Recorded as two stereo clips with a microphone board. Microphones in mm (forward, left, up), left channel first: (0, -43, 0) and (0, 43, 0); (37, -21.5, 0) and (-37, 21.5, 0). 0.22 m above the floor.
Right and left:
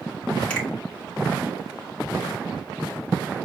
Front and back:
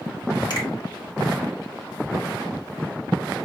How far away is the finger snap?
About 1.9 m.